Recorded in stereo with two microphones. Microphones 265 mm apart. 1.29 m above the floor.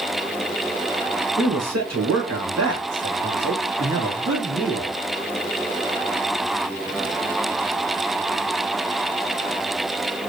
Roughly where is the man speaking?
Right.